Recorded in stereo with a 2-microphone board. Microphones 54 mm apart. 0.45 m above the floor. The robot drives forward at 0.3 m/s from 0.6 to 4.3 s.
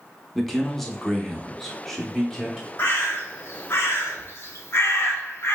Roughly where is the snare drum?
I don't hear a snare drum.